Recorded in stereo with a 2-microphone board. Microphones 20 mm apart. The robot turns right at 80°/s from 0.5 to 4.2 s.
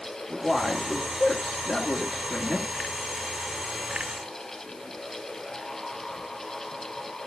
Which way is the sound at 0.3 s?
30° left.